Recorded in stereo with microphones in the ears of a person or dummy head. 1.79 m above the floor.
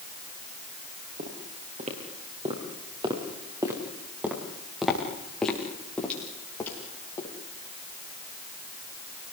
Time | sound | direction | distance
1.2 | footsteps | 45° right (ahead or behind) | 6.5 m